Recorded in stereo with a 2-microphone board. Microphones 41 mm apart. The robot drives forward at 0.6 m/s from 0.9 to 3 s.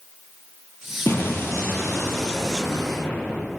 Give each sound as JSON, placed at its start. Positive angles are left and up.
{"t": 1.1, "sound": "an explosion", "side_deg": 75, "distance_m": 4.5}